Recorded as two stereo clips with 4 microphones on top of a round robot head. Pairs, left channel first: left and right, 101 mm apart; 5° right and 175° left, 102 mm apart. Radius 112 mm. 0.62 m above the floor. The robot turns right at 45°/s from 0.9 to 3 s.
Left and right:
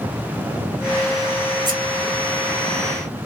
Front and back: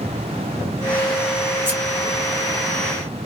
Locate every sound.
1.6 s scissors: 120° right, 1.8 m; by 1.8 s 115° right, 1.8 m